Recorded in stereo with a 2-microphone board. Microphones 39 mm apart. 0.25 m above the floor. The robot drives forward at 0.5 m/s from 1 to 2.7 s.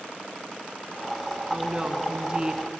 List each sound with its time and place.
1.5 s a woman speaking: 20° right (ahead or behind), 2.5 m